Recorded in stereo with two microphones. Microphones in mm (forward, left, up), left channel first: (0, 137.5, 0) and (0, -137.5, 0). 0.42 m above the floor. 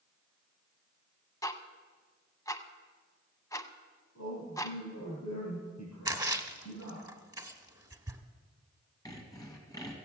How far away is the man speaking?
About 5 m.